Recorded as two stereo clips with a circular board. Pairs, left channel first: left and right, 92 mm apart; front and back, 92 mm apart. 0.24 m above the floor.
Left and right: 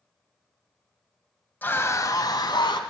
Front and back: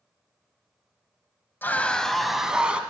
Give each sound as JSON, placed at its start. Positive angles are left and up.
{"t": 1.6, "sound": "a scream", "azimuth_deg": 40, "distance_m": 1.0}